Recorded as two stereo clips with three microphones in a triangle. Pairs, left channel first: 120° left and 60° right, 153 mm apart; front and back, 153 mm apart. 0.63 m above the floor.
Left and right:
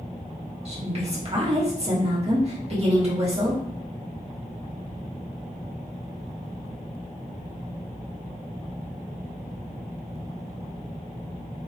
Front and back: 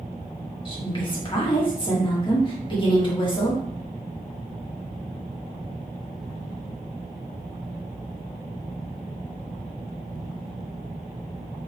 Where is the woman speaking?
40° right, 1.3 m.